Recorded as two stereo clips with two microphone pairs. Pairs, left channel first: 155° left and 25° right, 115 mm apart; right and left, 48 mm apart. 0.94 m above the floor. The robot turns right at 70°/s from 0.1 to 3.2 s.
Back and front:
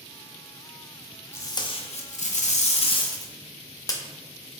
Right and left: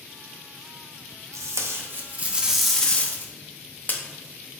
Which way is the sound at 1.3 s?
85° left.